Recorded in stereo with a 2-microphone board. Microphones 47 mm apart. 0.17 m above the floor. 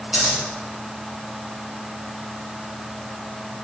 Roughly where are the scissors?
Centre.